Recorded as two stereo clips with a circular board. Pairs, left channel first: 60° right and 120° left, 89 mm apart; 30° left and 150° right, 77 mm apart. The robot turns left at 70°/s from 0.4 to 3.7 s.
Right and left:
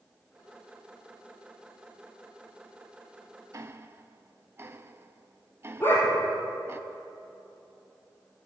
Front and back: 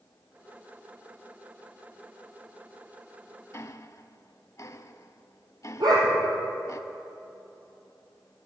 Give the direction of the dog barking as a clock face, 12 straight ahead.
4 o'clock.